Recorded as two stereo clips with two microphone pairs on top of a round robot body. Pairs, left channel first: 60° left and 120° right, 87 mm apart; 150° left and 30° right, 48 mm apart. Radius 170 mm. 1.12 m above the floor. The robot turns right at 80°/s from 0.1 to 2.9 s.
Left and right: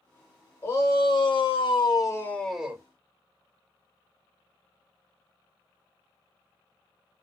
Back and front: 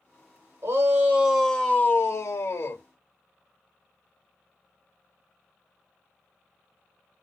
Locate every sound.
0.6 s a shout: straight ahead, 1.7 m; by 2.8 s 175° left, 1.7 m